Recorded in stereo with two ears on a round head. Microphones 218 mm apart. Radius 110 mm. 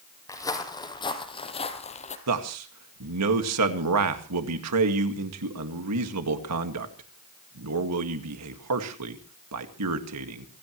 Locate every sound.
0.3 s footsteps: 15° left (ahead or behind), 4 m; by 2.2 s 30° left (ahead or behind), 3 m
2.3 s a man speaking: 70° right (ahead or behind), 2.0 m